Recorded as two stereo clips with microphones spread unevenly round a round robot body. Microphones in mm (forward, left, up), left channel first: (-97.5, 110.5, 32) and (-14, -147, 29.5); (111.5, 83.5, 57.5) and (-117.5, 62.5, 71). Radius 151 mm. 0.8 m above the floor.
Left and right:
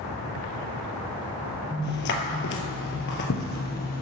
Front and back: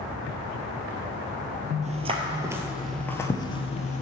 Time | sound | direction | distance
1.8 | footsteps | 140° left | 1.2 m